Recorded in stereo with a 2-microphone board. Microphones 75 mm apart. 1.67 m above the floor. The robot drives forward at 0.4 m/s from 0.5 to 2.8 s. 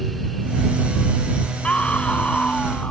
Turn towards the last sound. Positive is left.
turn(degrees=15)  # may be behind; listen again after turning